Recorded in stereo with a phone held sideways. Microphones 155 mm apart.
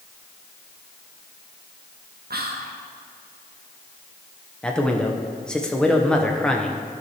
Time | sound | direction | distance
2.3 | whispering | 80° right | 0.6 m
4.6 | a man speaking | 5° left (ahead or behind) | 0.8 m